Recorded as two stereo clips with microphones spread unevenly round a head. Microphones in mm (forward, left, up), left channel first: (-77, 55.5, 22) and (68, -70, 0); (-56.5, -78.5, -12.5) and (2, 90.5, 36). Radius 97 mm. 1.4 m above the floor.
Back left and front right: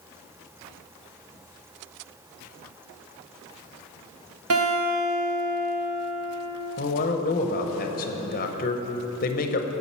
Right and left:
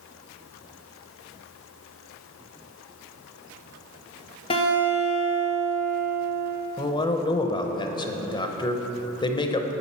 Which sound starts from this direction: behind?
A man speaking, at 6.8 s.